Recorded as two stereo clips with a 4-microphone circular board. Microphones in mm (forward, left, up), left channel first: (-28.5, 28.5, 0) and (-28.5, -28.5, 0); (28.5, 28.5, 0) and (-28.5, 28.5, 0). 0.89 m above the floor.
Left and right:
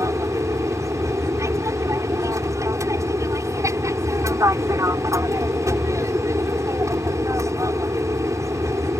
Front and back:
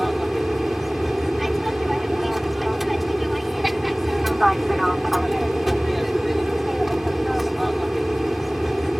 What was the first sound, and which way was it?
An aircraft, 90° right.